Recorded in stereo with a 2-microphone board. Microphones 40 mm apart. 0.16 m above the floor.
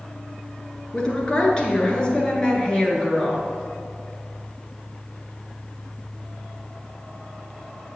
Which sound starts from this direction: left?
A woman speaking, at 0.9 s.